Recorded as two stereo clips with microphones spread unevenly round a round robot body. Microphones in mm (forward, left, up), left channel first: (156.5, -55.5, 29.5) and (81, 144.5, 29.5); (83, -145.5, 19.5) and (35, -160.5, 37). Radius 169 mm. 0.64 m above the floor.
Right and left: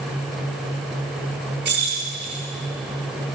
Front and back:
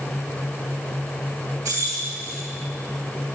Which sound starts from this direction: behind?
Keys jangling, at 1.6 s.